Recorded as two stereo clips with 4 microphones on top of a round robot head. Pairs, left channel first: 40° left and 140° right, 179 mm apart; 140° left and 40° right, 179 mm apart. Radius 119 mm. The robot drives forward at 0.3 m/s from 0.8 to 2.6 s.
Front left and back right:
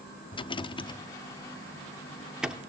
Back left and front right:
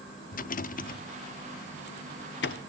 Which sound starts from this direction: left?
A rattle, at 0.3 s.